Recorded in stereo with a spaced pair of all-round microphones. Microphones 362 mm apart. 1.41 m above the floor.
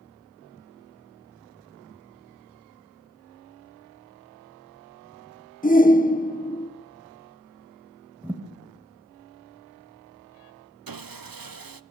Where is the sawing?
70° right (ahead or behind), 0.6 m.